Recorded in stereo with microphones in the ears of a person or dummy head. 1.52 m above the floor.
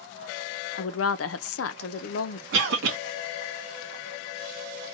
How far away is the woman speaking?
About 0.5 m.